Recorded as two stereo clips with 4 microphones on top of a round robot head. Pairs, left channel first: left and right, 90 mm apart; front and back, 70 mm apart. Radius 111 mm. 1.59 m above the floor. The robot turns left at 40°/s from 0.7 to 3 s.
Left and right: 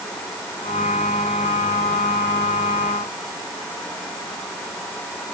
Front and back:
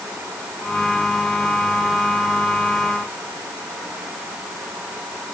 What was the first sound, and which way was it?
Only background noise.